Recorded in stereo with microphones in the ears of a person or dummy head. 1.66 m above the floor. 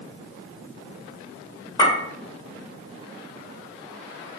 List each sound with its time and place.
1.8 s a clink: 25° left (ahead or behind), 1.0 m